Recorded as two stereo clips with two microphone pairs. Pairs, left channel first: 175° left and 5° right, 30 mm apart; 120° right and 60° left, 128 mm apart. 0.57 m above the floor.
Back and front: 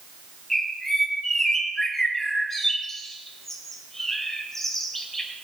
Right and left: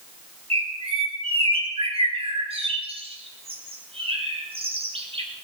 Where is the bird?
95° left, 3 m.